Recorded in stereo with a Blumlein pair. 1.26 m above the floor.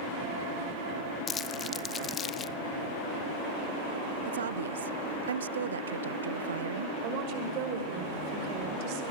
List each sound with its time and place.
1.3 s crumpling: 25° left, 1.0 m
4.2 s a woman speaking: 65° right, 0.5 m
7.0 s a woman speaking: 45° right, 5.5 m